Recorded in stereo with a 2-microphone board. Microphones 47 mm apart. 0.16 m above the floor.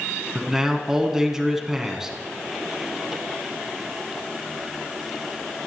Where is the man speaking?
10° right (ahead or behind), 1.4 m.